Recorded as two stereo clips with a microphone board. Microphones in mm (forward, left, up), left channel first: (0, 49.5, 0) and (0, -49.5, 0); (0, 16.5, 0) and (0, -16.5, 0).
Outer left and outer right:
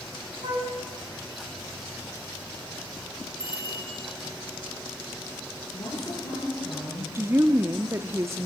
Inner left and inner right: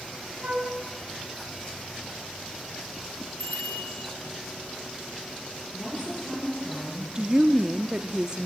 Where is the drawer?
No drawer in this recording.